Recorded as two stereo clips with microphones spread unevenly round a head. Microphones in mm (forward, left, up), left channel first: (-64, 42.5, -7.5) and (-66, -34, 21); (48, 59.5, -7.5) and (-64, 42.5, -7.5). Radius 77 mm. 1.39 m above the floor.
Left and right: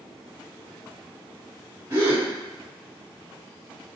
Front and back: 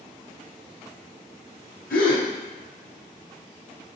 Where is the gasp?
25° right, 0.8 m.